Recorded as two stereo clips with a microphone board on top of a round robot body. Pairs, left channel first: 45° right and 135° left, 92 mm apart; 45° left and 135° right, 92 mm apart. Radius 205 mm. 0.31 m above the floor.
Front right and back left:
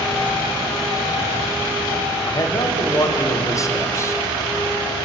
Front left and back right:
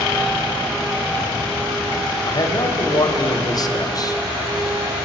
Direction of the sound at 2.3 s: 5° left.